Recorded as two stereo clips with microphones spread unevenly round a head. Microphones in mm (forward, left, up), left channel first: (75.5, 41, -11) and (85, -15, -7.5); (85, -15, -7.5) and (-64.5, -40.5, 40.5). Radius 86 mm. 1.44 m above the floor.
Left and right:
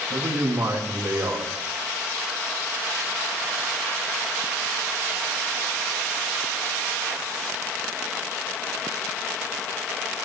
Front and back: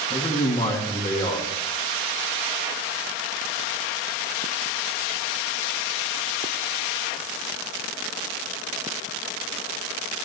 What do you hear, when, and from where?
0.1 s a man speaking: 50° right, 2 m